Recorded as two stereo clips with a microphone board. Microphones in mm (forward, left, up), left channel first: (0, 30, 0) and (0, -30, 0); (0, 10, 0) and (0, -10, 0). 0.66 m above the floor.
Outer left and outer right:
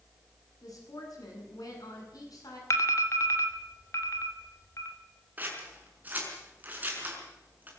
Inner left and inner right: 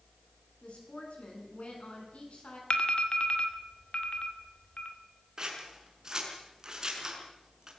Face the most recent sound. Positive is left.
turn(degrees=-25)  # may be behind; listen again after turning